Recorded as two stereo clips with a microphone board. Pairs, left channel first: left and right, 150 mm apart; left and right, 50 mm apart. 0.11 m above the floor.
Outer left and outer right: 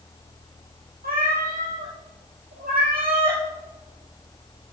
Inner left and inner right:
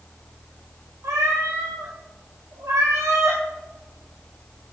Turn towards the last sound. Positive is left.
turn(degrees=-75)  # may be behind; listen again after turning